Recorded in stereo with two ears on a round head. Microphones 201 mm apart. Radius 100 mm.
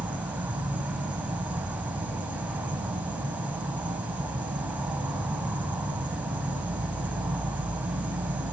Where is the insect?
5° right (ahead or behind), 1.0 m.